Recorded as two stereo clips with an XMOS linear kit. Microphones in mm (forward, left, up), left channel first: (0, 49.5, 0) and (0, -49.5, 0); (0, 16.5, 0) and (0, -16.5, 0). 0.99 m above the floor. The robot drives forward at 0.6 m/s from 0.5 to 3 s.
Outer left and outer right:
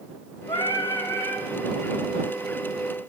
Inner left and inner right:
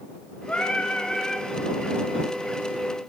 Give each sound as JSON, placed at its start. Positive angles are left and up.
{"t": 0.5, "sound": "singing", "side_deg": 50, "distance_m": 0.5}